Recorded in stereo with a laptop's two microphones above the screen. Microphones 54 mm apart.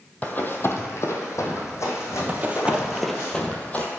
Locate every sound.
0.2 s running footsteps: 30° left (ahead or behind), 1.6 m; by 3.3 s 55° left (ahead or behind), 4 m
2.3 s running footsteps: 35° right (ahead or behind), 1.3 m; by 3.9 s 30° left (ahead or behind), 1.6 m